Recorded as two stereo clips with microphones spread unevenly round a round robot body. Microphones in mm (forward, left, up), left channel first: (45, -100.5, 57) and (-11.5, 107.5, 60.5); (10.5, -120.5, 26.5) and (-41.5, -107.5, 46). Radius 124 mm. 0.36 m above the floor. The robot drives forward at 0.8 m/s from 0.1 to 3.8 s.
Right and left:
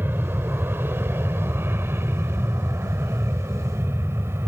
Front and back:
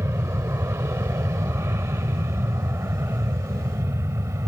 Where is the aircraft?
175° right; by 4.5 s straight behind.